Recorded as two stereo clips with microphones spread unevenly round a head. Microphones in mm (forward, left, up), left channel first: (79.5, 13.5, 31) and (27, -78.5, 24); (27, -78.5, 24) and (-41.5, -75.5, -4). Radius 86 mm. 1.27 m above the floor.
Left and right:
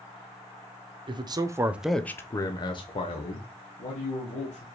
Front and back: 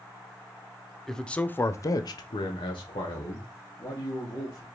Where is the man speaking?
105° right, 0.7 m; by 4.7 s 40° left, 1.8 m.